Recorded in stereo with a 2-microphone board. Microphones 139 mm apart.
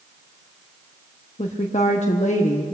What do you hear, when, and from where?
1.4 s a woman speaking: 55° left (ahead or behind), 0.9 m